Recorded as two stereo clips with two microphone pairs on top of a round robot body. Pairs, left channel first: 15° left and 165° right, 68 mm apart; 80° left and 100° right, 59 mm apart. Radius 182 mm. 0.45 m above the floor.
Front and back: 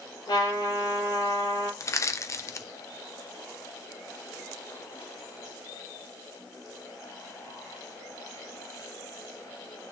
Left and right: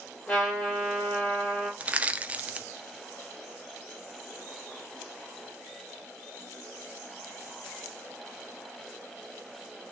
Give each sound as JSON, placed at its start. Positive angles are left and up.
{"t": 0.3, "sound": "a trumpet", "azimuth_deg": 10, "distance_m": 6.5}
{"t": 1.8, "sound": "crushing", "azimuth_deg": -35, "distance_m": 1.0}